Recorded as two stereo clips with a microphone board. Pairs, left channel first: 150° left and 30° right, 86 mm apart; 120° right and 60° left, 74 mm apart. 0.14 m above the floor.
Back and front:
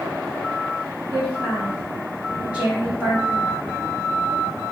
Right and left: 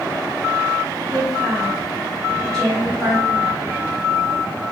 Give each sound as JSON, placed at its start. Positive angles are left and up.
{"t": 1.1, "sound": "a woman speaking", "azimuth_deg": -65, "distance_m": 1.3}